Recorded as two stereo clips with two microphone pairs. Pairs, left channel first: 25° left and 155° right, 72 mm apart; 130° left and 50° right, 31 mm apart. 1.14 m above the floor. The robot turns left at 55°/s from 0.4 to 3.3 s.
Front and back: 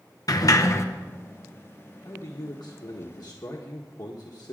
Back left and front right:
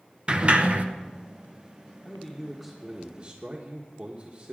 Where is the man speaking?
70° left, 1.3 m; by 4.5 s 5° left, 1.3 m.